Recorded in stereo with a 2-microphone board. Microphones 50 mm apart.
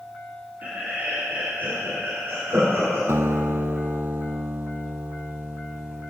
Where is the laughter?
35° right (ahead or behind), 4.5 m; by 3.0 s 65° right (ahead or behind), 5.5 m.